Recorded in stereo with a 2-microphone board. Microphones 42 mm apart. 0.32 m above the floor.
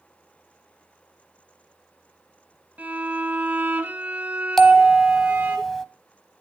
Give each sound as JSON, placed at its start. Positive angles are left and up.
{"t": 2.8, "sound": "a violin", "side_deg": -45, "distance_m": 2.5}
{"t": 4.6, "sound": "a bell", "side_deg": 5, "distance_m": 0.9}